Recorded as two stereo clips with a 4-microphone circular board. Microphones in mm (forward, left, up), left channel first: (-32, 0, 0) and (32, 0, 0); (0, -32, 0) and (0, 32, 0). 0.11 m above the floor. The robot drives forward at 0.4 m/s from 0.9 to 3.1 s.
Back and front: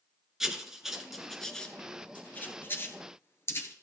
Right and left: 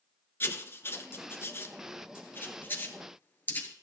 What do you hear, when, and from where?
0.4 s writing: 80° right, 1.0 m; by 3.7 s 145° right, 1.3 m